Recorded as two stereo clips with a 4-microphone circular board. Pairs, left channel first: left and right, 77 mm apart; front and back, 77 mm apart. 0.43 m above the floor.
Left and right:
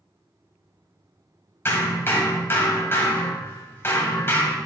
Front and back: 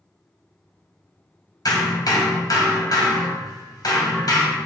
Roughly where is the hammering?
Ahead left.